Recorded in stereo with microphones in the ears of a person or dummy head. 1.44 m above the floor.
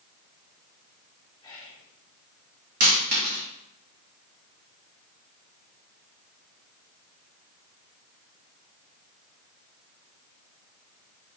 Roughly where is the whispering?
Centre.